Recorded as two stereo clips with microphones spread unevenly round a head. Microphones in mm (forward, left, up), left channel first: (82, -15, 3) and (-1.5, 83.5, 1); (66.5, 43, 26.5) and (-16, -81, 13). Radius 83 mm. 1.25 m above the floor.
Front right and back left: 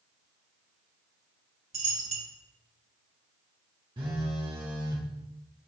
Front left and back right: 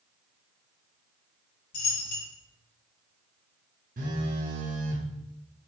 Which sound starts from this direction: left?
A dropped coin, at 1.7 s.